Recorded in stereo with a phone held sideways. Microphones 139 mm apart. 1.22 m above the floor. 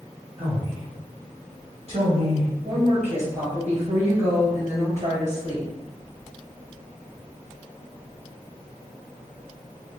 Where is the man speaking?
45° right (ahead or behind), 0.9 m.